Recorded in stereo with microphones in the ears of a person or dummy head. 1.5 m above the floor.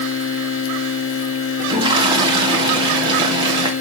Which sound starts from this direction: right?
A toilet flushing, at 1.6 s.